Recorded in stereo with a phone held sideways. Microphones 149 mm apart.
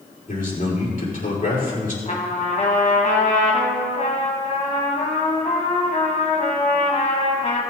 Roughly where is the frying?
I don't hear frying.